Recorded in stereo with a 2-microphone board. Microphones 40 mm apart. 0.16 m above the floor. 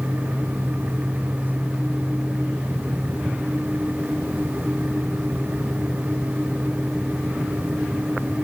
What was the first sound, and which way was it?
Only background noise.